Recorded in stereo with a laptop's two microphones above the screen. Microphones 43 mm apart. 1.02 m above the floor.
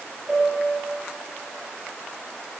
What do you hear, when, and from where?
0.3 s a piano: 10° left (ahead or behind), 3 m